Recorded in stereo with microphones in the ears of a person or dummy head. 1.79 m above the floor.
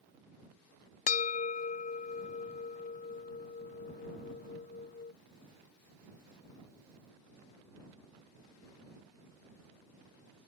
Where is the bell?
40° left (ahead or behind).